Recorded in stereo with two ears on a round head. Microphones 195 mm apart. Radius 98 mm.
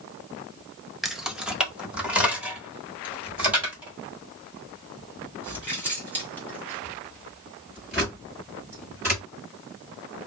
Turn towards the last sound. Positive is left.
turn(degrees=-10)  # may be behind; listen again after turning